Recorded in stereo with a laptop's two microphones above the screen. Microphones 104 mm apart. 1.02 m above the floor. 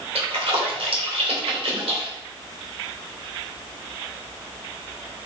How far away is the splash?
About 2.5 m.